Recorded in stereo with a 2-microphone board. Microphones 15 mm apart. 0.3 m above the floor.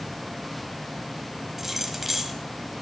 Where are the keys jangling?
15° right (ahead or behind), 1.2 m.